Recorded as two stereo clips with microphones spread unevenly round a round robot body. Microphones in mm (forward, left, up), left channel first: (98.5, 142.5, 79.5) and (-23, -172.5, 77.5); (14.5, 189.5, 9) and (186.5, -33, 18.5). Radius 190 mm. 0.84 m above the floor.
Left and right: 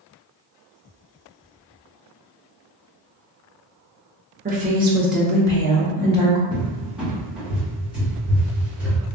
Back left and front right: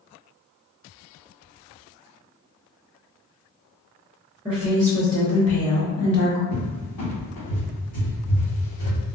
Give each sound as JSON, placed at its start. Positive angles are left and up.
{"t": 4.5, "sound": "a woman speaking", "azimuth_deg": -130, "distance_m": 0.8}
{"t": 6.5, "sound": "a cupboard door", "azimuth_deg": 160, "distance_m": 1.4}